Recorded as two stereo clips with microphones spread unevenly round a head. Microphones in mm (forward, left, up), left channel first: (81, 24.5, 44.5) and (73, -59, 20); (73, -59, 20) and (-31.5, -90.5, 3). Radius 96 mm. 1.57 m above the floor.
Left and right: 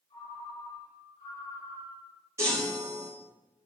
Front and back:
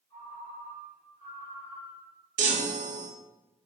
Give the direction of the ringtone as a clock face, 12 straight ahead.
9 o'clock.